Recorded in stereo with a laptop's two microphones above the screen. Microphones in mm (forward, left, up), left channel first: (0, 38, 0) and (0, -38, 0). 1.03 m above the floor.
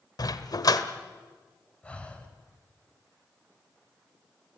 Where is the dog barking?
60° left (ahead or behind), 1.3 m.